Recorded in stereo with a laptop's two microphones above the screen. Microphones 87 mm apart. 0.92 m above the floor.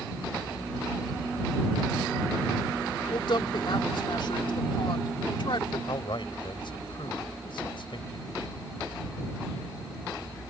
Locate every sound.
3.1 s a woman speaking: 65° left (ahead or behind)
5.9 s a man speaking: 65° left (ahead or behind)